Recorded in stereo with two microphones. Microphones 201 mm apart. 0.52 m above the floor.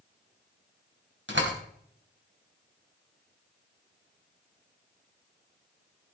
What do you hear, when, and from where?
1.3 s a door slam: 70° right (ahead or behind), 2.5 m